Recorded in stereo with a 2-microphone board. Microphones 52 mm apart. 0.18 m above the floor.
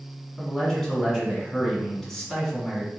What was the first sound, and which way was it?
A man speaking, 5° left (ahead or behind).